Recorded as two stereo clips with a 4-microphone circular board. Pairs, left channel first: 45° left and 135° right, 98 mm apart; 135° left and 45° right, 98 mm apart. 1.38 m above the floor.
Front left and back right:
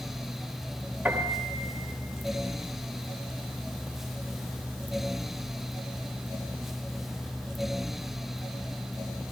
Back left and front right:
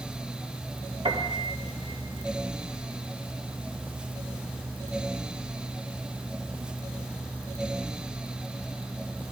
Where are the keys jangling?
I don't hear keys jangling.